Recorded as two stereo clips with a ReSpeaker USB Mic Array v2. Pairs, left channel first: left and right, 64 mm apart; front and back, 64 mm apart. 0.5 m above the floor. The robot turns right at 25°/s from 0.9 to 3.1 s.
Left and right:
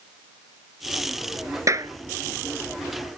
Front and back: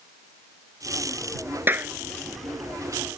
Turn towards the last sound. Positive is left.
turn(degrees=-90)